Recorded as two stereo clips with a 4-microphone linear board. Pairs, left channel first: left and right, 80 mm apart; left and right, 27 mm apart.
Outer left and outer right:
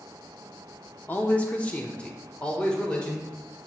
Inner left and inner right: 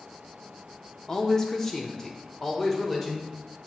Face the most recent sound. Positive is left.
turn(degrees=10)  # may be behind; listen again after turning